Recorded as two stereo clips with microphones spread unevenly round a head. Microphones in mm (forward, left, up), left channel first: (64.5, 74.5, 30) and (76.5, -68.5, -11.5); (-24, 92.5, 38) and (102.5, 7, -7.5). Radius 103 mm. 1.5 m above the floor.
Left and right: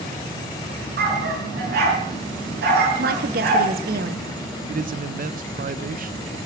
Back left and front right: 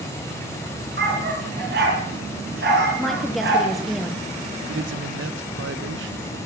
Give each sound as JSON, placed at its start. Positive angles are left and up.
{"t": 1.0, "sound": "a dog barking", "azimuth_deg": -85, "distance_m": 6.0}
{"t": 3.0, "sound": "a woman speaking", "azimuth_deg": -125, "distance_m": 1.1}
{"t": 4.7, "sound": "a man speaking", "azimuth_deg": -55, "distance_m": 0.9}